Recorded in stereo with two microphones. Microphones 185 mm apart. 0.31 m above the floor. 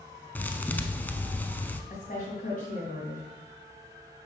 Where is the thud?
10° left (ahead or behind), 0.5 m.